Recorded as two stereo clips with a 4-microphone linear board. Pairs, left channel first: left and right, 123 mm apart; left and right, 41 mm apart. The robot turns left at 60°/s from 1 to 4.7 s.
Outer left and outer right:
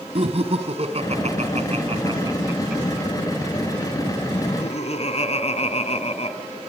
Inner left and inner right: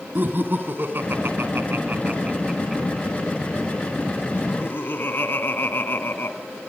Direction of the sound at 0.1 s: 55° right (ahead or behind).